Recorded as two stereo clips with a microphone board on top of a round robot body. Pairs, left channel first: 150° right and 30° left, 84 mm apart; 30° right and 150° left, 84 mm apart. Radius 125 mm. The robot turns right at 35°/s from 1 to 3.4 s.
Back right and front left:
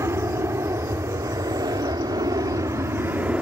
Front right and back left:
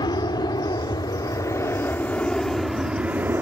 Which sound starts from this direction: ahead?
An aircraft, at 0.0 s.